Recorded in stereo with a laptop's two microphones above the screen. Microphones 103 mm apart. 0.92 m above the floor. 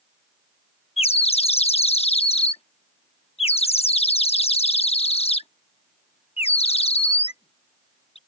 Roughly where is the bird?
Left.